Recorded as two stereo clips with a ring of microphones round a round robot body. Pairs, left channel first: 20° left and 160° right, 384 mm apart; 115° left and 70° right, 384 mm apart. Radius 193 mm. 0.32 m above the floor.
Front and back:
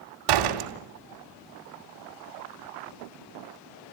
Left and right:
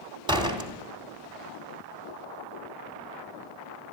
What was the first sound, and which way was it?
A door slam, 145° right.